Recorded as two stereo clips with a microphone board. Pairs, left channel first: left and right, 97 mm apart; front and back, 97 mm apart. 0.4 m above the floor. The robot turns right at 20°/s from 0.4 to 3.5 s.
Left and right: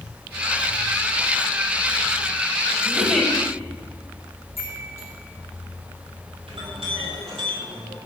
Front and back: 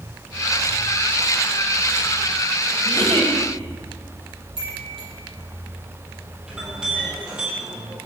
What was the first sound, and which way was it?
A giggle, straight behind.